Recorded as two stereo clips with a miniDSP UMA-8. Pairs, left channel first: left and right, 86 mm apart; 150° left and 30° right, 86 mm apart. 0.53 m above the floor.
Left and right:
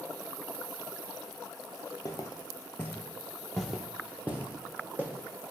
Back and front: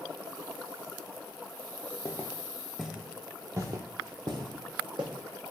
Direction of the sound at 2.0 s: 105° left.